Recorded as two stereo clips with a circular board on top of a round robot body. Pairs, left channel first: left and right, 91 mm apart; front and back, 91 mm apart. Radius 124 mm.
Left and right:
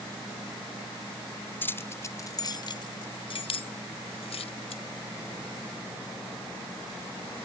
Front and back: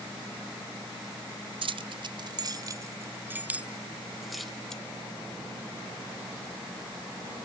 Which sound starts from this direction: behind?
Keys jangling, at 1.6 s.